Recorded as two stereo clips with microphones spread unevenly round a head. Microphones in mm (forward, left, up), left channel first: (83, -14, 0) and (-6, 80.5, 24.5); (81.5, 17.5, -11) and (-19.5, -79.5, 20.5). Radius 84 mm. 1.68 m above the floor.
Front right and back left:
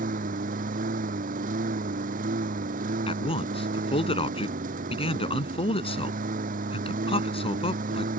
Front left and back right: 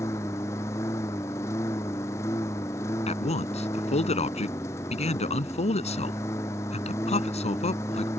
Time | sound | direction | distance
0.0 | a lawn mower | 120° left | ?
3.1 | a man speaking | straight ahead | ?